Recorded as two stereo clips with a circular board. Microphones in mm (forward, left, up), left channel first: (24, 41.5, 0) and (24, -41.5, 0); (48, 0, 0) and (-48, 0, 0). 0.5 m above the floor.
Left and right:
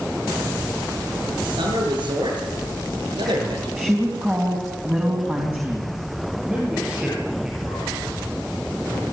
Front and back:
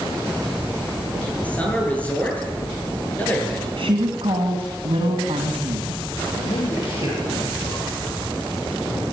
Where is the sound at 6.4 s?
10° right, 8 m.